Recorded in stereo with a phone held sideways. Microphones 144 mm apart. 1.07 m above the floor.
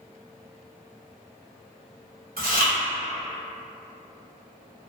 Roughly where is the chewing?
Right.